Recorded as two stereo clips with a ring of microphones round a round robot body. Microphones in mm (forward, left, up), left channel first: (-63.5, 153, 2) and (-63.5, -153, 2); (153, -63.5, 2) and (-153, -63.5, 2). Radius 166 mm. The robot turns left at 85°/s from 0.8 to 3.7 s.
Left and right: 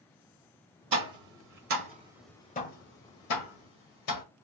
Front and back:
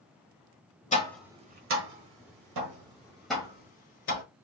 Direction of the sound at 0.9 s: 65° right.